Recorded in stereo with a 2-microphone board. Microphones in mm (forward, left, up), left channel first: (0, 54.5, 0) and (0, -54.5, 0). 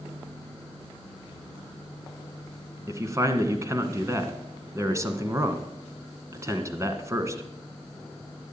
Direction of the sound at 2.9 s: 25° right (ahead or behind).